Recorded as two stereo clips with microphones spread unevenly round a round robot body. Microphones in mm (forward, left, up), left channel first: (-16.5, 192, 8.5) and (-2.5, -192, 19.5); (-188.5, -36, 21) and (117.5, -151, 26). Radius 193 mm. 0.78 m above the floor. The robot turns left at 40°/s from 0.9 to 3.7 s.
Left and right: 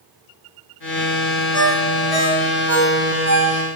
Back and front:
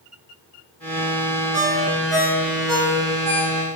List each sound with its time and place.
1.5 s a ringtone: 40° left, 2 m; by 3.6 s 45° right, 2 m